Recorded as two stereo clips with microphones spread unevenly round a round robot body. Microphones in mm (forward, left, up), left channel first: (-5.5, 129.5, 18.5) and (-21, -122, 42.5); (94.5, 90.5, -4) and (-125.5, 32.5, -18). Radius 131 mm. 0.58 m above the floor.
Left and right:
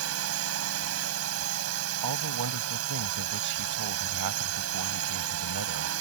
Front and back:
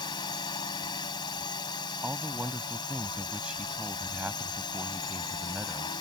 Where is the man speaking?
80° right.